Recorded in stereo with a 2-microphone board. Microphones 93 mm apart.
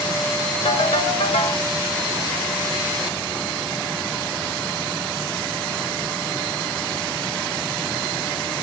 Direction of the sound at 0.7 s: 80° left.